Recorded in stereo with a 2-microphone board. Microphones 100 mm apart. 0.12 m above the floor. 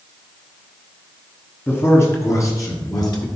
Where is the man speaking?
20° left (ahead or behind), 1.4 m; by 3.2 s 40° left (ahead or behind), 1.8 m.